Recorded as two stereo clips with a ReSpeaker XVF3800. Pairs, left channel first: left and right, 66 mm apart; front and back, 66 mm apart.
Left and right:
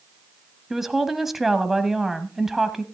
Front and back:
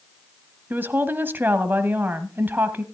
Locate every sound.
0.7 s a woman speaking: 170° right, 1.1 m